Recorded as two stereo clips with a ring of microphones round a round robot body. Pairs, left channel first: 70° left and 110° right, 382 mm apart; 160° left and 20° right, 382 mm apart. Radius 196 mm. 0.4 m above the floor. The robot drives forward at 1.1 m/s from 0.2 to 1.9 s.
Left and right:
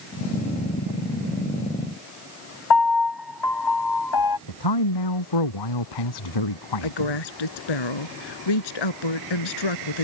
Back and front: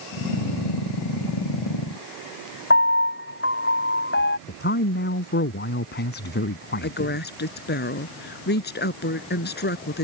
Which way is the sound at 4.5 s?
95° left.